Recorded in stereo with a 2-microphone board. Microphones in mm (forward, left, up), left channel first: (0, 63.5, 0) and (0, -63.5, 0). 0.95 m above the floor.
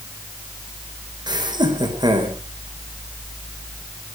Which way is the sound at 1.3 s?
35° right (ahead or behind).